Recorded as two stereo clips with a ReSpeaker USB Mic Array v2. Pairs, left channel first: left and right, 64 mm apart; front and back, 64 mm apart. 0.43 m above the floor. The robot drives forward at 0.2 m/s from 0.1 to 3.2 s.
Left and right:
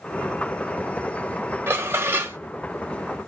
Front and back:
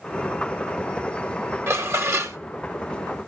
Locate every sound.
1.7 s dishes clattering: 140° right, 1.3 m; by 2.4 s 145° right, 1.4 m